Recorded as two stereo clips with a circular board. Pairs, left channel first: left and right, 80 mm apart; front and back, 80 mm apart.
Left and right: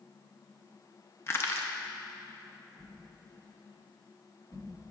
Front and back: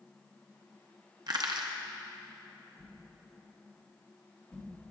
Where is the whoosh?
60° left, 2.5 m.